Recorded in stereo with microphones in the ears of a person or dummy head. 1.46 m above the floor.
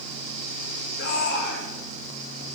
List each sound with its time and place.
1.0 s a shout: 70° left (ahead or behind), 7 m